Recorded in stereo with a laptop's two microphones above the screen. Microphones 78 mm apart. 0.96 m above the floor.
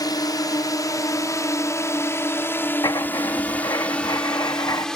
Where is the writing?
55° left (ahead or behind).